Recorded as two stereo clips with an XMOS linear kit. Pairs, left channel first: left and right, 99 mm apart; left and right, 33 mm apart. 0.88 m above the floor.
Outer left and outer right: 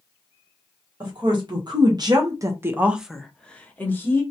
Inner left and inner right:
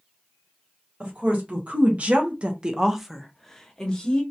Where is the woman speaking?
45° right (ahead or behind), 1.1 m; by 4.2 s 25° left (ahead or behind), 1.0 m.